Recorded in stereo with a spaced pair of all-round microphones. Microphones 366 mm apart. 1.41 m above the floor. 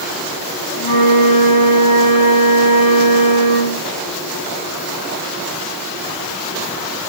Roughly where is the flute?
Left.